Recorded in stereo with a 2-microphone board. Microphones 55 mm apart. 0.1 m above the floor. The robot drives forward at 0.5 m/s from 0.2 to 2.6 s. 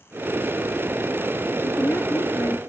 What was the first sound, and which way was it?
A woman speaking, 55° left (ahead or behind).